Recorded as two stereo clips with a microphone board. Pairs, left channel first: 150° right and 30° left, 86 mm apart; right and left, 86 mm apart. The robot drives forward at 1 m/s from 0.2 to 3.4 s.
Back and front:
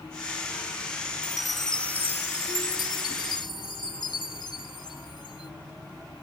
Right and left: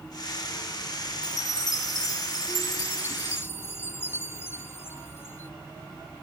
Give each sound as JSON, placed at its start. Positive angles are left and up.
{"t": 1.2, "sound": "a chime", "azimuth_deg": -50}